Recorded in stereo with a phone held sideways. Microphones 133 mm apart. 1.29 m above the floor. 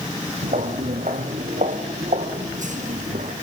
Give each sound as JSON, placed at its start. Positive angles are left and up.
{"t": 0.4, "sound": "footsteps", "side_deg": -65, "distance_m": 3.0}